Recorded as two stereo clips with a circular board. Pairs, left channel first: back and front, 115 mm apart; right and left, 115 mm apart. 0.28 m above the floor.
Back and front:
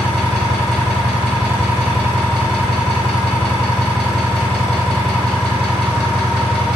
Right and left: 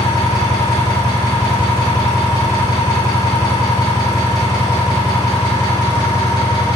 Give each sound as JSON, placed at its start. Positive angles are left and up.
{"t": 0.0, "sound": "an engine running", "azimuth_deg": -80, "distance_m": 1.4}